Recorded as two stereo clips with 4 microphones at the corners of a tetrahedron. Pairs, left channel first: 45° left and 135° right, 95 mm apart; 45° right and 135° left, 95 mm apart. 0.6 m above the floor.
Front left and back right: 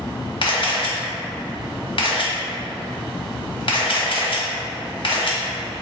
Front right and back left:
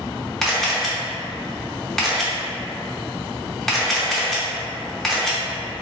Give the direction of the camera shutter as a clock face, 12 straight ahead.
11 o'clock.